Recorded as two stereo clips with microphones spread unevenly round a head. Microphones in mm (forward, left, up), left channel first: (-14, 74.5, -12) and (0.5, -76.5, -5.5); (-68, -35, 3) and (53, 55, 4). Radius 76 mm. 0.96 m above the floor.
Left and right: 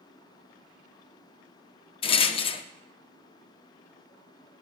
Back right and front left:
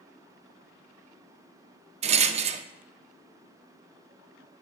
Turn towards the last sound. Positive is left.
turn(degrees=55)